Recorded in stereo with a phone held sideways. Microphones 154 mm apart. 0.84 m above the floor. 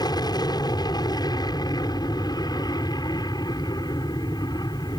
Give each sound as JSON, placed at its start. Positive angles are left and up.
{"t": 0.0, "sound": "an aircraft", "side_deg": 25}